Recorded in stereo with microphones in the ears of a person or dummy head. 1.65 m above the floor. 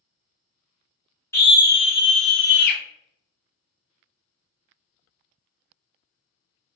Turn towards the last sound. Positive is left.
turn(degrees=65)  # may be behind; listen again after turning